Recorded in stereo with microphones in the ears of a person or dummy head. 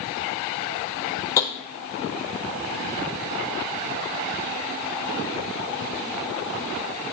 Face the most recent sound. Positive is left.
turn(degrees=15)  # may be behind; listen again after turning